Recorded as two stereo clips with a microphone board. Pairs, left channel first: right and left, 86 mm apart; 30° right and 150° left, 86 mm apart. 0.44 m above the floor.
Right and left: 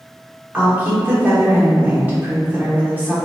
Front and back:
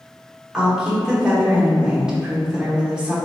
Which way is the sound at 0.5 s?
85° left.